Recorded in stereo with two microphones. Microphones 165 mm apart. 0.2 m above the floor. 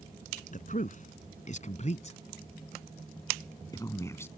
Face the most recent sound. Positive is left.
turn(degrees=15)  # may be behind; listen again after turning